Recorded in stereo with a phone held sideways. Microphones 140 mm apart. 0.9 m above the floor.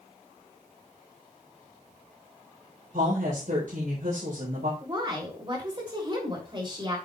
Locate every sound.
2.9 s a woman speaking: 80° right, 3.5 m
4.8 s a woman speaking: 35° right (ahead or behind), 3 m